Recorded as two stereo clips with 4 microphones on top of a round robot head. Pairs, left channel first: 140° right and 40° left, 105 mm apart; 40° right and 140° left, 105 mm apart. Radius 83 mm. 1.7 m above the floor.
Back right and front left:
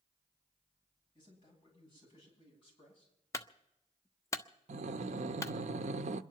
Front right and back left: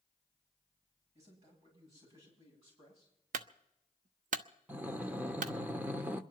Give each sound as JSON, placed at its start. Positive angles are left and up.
{"t": 1.1, "sound": "a man speaking", "azimuth_deg": 170, "distance_m": 10.0}
{"t": 3.3, "sound": "a clunk", "azimuth_deg": 155, "distance_m": 0.6}
{"t": 4.7, "sound": "breathing", "azimuth_deg": 65, "distance_m": 0.6}